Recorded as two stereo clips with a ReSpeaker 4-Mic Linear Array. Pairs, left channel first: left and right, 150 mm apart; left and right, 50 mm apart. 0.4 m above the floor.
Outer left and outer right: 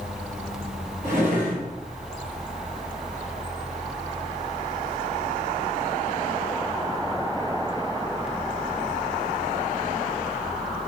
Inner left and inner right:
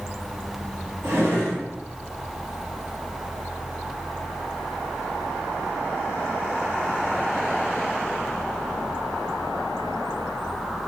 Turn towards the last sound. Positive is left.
turn(degrees=-75)  # may be behind; listen again after turning